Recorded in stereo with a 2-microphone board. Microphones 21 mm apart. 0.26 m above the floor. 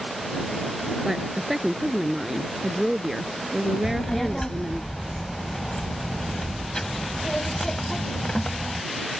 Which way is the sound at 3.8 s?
30° left (ahead or behind).